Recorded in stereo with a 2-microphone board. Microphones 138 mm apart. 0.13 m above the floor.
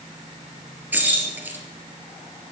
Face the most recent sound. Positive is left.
turn(degrees=-15)  # may be behind; listen again after turning